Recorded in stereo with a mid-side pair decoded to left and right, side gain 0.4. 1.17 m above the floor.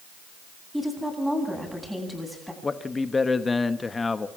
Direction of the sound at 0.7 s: Straight ahead.